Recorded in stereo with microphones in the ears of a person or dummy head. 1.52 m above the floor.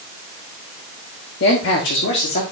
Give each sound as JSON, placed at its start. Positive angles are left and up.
{"t": 1.4, "sound": "a man speaking", "side_deg": 60, "distance_m": 1.4}